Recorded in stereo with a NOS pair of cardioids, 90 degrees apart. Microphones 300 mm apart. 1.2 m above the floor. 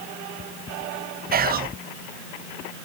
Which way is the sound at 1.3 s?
30° right.